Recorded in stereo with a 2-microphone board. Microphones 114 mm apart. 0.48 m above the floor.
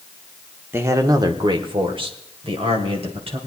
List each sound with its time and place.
0.7 s a man speaking: 20° right (ahead or behind), 0.8 m; by 3.4 s 55° right (ahead or behind), 2.5 m